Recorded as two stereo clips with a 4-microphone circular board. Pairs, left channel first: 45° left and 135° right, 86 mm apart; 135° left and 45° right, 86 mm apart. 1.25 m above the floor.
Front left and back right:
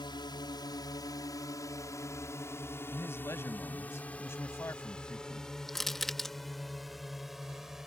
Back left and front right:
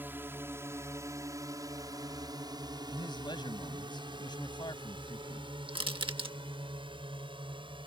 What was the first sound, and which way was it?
A drone, 20° left.